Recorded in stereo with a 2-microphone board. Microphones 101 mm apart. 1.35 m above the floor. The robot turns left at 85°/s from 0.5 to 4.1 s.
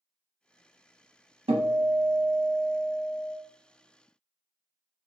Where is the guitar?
85° right, 0.6 m; by 3.4 s 115° left, 0.6 m.